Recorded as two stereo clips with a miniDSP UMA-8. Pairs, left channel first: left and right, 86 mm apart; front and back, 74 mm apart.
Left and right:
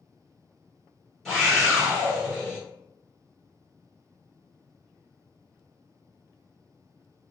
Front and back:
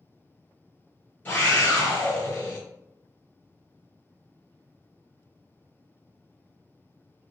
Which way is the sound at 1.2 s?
10° left.